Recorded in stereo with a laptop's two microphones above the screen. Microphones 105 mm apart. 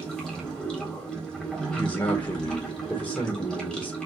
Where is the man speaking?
45° left (ahead or behind), 1.2 m.